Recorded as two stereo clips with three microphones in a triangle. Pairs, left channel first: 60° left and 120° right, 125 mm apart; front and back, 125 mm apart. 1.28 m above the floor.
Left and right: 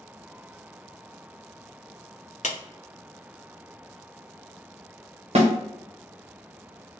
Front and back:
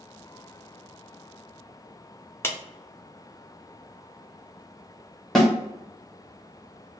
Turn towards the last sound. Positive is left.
turn(degrees=-85)